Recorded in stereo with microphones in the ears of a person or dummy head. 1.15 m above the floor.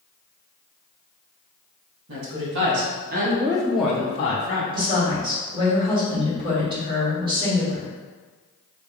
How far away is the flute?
No flute in this recording.